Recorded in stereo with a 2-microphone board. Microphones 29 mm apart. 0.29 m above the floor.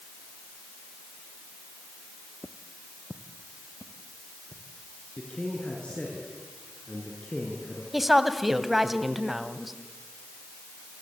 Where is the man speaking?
40° left (ahead or behind), 4.5 m.